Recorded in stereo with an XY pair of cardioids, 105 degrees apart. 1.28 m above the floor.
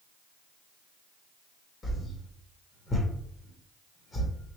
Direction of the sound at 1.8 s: 35° left.